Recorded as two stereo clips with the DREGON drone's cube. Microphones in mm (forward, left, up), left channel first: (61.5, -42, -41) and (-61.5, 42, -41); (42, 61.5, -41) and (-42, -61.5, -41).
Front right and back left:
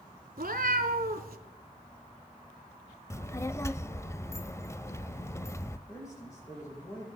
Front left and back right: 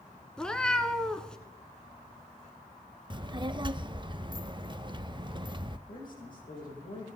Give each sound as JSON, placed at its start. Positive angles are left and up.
{"t": 0.4, "sound": "a cat meowing", "azimuth_deg": 140, "distance_m": 1.1}
{"t": 3.1, "sound": "a child speaking", "azimuth_deg": -90, "distance_m": 0.6}
{"t": 5.9, "sound": "a man speaking", "azimuth_deg": 35, "distance_m": 9.5}